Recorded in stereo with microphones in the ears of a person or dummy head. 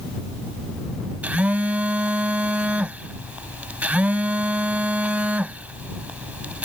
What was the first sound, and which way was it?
A phone buzzing, 10° right (ahead or behind).